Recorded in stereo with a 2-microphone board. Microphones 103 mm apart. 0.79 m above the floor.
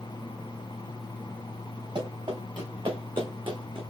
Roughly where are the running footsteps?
Right.